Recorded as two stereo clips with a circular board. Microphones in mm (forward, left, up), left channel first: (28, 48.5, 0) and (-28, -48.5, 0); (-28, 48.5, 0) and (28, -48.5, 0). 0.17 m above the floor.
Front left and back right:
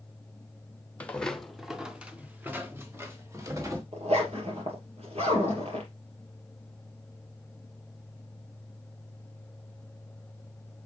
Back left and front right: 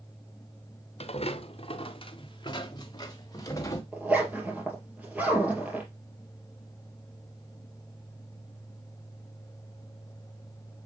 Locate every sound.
1.0 s footsteps: 135° left, 1.1 m; by 3.8 s straight behind, 2 m
3.9 s a zipper: 135° right, 3 m